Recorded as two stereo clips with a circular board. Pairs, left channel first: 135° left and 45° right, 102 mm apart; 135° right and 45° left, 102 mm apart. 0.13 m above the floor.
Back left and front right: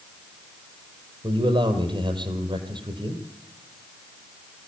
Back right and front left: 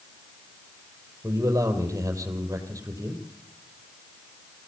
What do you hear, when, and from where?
1.2 s a man speaking: 15° right, 4 m